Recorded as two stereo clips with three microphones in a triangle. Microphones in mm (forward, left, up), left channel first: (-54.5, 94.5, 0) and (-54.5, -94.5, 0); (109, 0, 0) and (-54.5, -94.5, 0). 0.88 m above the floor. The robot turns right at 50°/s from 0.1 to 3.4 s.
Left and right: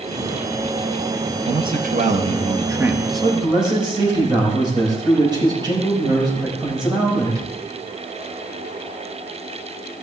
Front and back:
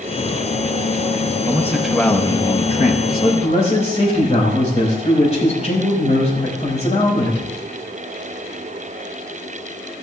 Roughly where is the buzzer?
I don't hear a buzzer.